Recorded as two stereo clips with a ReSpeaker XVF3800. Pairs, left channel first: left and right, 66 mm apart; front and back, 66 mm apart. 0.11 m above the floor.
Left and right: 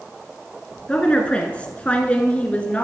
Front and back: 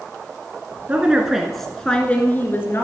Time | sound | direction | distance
0.9 | a woman speaking | 140° left | 1.4 m